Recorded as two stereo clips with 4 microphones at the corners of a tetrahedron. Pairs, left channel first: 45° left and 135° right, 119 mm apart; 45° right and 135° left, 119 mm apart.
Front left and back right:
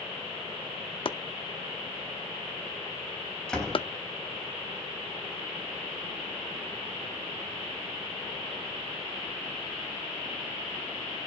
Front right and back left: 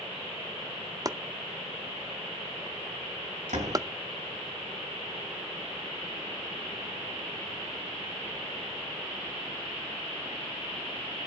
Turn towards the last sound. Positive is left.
turn(degrees=130)